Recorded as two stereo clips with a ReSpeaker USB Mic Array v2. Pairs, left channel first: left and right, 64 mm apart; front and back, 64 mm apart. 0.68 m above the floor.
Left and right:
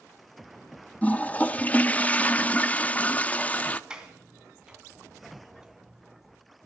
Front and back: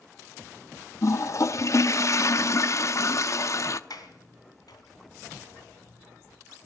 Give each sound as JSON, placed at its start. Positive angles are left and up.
{"t": 1.0, "sound": "a toilet flushing", "azimuth_deg": 25, "distance_m": 0.6}
{"t": 3.9, "sound": "a sliding door", "azimuth_deg": -15, "distance_m": 2.5}